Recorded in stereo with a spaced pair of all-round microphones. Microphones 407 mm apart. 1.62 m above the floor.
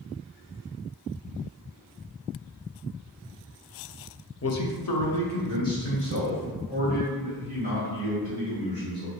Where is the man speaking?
35° left (ahead or behind), 0.5 m; by 9.1 s 85° left, 3.5 m.